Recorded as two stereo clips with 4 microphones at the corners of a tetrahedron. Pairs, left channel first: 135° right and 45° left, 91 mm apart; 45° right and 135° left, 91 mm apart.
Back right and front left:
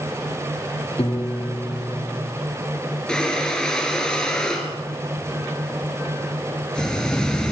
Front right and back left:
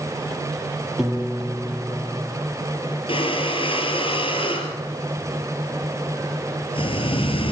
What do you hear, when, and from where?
1.0 s a piano: 140° right, 3.5 m
3.1 s breathing: 55° right, 3.5 m